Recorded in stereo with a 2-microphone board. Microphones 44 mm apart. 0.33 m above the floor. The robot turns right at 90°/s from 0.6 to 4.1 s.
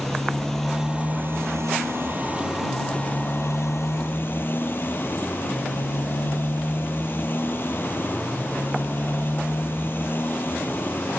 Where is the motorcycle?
175° left; by 11.2 s 130° left.